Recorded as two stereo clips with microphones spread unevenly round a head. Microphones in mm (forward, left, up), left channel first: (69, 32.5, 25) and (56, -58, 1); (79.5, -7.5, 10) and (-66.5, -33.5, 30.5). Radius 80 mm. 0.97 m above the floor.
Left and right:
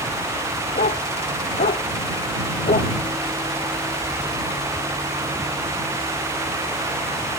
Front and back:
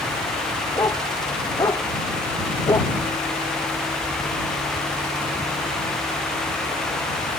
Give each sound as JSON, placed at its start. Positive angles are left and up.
{"t": 0.8, "sound": "a dog barking", "azimuth_deg": 85}